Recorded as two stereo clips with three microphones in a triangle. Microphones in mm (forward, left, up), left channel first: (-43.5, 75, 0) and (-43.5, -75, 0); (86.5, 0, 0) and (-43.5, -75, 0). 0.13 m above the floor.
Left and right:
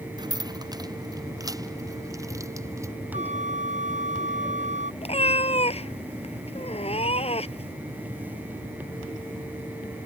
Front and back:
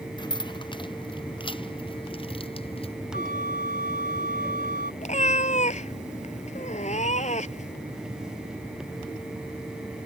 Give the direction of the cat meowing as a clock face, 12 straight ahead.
10 o'clock.